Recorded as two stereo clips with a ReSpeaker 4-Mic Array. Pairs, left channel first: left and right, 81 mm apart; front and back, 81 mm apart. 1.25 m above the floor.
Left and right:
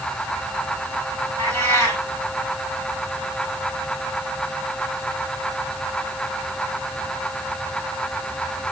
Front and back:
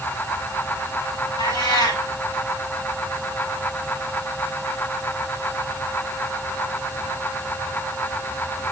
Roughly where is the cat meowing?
Ahead left.